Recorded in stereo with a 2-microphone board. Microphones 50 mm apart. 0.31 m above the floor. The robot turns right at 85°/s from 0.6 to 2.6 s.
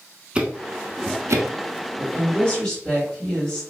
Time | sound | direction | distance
0.3 | ticking | 20° right (ahead or behind) | 0.6 m
2.0 | a woman speaking | 110° left | 1.8 m